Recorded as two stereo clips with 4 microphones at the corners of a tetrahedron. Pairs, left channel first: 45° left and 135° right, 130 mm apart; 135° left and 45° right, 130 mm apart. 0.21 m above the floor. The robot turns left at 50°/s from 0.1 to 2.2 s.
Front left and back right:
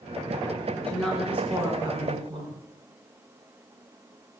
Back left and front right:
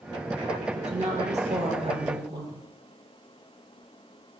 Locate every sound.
0.8 s a woman speaking: 25° right, 3 m; by 2.6 s 100° right, 3 m